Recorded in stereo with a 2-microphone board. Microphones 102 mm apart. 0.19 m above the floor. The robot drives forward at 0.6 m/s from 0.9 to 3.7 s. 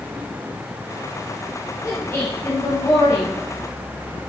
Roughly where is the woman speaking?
Left.